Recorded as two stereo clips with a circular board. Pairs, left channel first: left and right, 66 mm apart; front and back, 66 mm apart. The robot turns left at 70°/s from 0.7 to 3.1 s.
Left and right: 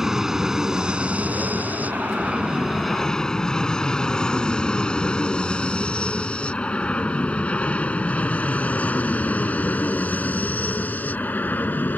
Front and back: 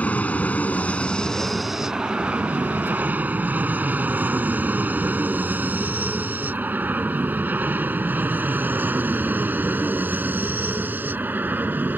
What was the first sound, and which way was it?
An aircraft, 20° right.